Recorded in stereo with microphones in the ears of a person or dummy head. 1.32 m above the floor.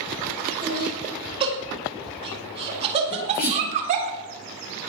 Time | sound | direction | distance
0.6 | laughter | 25° right (ahead or behind) | 5.5 m
3.1 | a sneeze | 55° left (ahead or behind) | 5 m